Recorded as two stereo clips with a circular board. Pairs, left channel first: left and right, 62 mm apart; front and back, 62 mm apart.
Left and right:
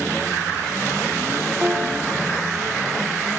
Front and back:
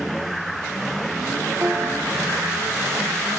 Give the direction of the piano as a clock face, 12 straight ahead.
5 o'clock.